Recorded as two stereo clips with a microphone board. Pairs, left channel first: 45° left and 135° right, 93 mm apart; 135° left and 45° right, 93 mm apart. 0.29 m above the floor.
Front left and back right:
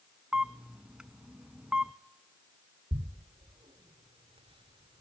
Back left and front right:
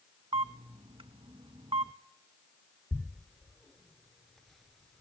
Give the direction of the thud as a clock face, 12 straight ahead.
5 o'clock.